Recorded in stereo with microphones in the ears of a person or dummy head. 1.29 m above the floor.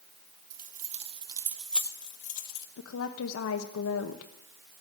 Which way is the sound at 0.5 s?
45° right (ahead or behind).